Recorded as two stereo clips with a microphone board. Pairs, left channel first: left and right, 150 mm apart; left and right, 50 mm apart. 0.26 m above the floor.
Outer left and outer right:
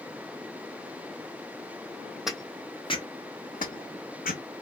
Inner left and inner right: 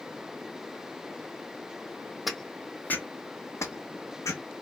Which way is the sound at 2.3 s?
5° right (ahead or behind).